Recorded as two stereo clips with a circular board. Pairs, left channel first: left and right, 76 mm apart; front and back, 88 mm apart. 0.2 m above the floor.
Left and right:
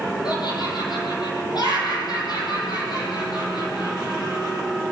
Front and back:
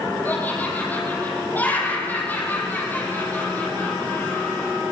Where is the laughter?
70° left, 6.5 m.